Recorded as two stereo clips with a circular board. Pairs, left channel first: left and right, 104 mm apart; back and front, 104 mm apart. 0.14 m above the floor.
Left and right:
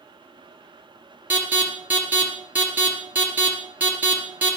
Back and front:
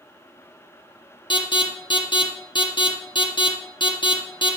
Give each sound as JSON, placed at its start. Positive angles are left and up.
{"t": 1.3, "sound": "an alarm", "azimuth_deg": -160, "distance_m": 3.0}